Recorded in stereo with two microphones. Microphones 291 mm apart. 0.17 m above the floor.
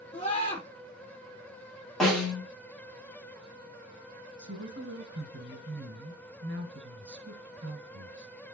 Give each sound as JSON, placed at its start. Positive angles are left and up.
{"t": 0.1, "sound": "a scream", "side_deg": 25, "distance_m": 5.0}
{"t": 2.0, "sound": "a snare drum", "side_deg": 0, "distance_m": 4.0}
{"t": 4.4, "sound": "a woman speaking", "side_deg": -40, "distance_m": 1.8}